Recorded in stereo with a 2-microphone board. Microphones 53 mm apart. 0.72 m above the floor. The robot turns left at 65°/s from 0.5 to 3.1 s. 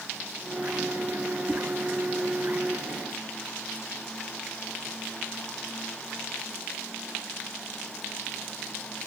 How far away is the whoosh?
About 1.3 m.